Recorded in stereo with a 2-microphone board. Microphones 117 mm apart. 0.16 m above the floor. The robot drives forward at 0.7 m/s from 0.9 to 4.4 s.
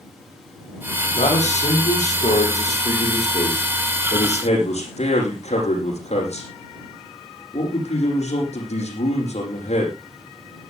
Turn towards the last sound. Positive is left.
turn(degrees=65)  # may be behind; listen again after turning